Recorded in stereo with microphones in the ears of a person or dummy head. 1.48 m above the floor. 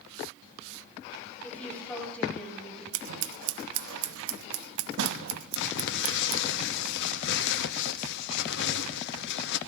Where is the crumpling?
60° left (ahead or behind), 0.8 m.